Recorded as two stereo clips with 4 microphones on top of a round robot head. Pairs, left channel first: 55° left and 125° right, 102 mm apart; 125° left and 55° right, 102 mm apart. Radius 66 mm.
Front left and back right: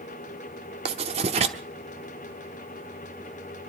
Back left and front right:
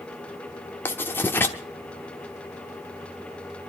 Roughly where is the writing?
Behind.